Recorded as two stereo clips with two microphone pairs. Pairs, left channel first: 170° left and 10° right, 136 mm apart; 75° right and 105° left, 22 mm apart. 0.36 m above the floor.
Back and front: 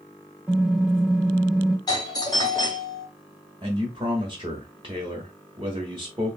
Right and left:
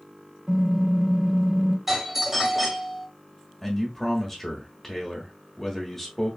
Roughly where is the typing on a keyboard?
Ahead left.